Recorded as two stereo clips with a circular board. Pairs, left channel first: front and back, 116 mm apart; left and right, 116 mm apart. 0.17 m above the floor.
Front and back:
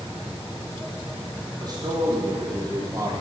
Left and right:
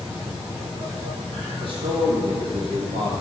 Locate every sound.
1.6 s a man speaking: 130° right, 6 m; by 3.1 s 120° right, 4.5 m